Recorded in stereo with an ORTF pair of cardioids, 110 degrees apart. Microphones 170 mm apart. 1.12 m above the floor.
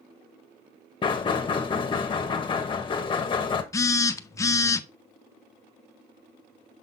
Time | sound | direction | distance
1.0 | knocking | 30° left | 1.1 m
3.7 | a phone buzzing | 20° left | 0.6 m